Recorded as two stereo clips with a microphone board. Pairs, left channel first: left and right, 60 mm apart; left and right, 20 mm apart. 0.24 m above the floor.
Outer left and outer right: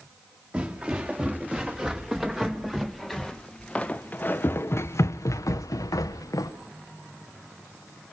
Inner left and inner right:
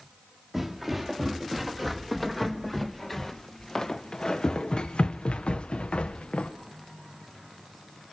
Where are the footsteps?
20° right (ahead or behind), 3 m; by 6.5 s 80° left, 1.6 m.